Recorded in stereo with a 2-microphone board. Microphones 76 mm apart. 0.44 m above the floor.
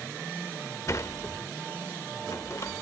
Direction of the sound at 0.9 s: 45° left (ahead or behind).